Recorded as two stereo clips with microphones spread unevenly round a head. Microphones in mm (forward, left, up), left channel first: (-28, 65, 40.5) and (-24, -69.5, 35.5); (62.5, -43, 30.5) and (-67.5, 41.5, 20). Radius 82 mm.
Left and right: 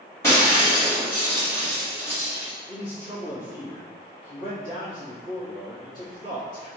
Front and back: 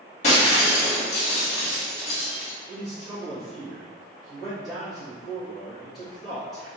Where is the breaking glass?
20° left, 1.3 m.